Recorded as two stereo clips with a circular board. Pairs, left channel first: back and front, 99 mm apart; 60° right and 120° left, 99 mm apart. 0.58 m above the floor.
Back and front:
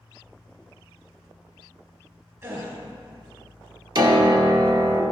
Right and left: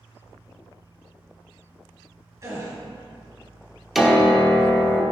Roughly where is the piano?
Ahead left.